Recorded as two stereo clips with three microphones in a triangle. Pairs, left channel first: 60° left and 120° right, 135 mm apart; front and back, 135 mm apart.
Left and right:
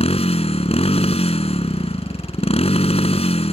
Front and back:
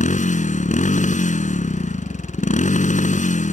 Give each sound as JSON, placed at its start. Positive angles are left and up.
{"t": 0.0, "sound": "a motorcycle", "azimuth_deg": 20}